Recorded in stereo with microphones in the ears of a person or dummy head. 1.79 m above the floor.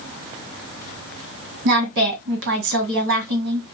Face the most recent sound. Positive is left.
turn(degrees=-65)  # may be behind; listen again after turning